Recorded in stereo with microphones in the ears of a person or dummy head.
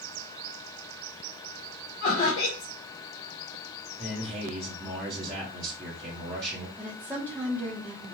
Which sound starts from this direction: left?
Laughter, at 2.0 s.